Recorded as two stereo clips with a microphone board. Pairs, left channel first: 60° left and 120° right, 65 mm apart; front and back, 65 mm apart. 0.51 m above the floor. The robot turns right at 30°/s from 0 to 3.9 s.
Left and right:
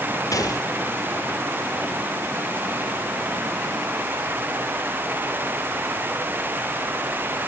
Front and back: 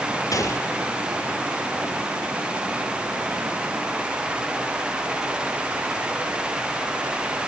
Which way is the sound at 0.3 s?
25° left.